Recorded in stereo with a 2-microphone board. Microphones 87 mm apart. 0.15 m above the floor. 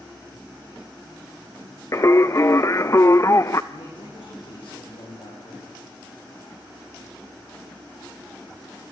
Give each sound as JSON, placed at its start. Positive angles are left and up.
{"t": 1.9, "sound": "singing", "side_deg": 35, "distance_m": 0.7}
{"t": 3.7, "sound": "a man speaking", "side_deg": 80, "distance_m": 9.5}